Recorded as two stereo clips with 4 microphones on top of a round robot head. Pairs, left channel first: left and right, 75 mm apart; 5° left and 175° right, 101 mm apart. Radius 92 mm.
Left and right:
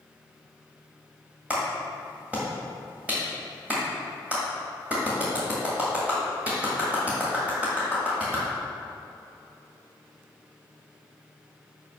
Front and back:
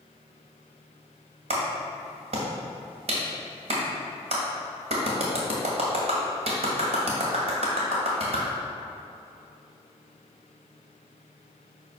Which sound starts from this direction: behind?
A clap, at 1.5 s.